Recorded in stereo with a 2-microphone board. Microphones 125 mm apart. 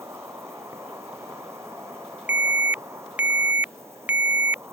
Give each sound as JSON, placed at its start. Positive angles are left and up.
{"t": 0.0, "sound": "an insect", "side_deg": -20}
{"t": 2.3, "sound": "an alarm", "side_deg": -15}